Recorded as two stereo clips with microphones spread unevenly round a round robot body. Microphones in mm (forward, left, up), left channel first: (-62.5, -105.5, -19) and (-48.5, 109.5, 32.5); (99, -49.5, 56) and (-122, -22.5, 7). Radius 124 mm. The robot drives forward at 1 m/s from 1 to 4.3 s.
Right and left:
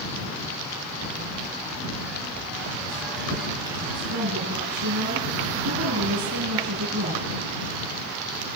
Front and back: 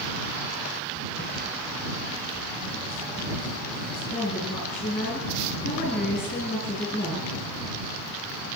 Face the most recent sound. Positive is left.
turn(degrees=75)